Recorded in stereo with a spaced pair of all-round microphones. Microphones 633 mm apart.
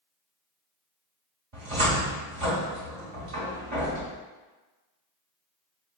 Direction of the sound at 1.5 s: 55° right (ahead or behind).